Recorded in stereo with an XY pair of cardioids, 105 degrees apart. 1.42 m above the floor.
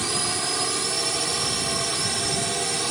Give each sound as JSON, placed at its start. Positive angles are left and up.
{"t": 0.0, "sound": "a drone", "azimuth_deg": -20}